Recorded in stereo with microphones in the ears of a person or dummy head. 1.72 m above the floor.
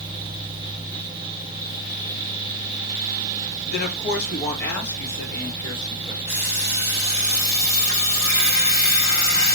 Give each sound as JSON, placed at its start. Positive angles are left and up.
{"t": 3.7, "sound": "a woman speaking", "side_deg": 55, "distance_m": 0.8}
{"t": 6.3, "sound": "an alarm clock", "side_deg": 40, "distance_m": 1.6}